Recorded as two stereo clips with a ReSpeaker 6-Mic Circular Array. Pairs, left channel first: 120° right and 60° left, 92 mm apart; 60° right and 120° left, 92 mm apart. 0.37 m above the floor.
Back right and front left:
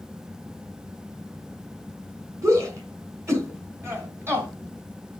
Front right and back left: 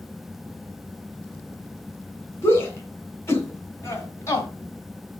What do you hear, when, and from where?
2.4 s a shout: 5° left, 3.5 m; by 4.5 s 5° right, 2.5 m